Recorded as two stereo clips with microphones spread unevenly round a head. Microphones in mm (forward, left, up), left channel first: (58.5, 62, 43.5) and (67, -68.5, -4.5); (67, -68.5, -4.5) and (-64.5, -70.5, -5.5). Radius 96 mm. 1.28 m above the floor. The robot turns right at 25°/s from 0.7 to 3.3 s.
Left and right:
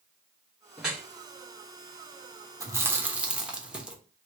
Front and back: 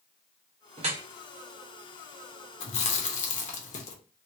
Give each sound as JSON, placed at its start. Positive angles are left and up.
{"t": 0.8, "sound": "dripping", "azimuth_deg": 165, "distance_m": 0.8}
{"t": 2.6, "sound": "chewing", "azimuth_deg": -10, "distance_m": 0.8}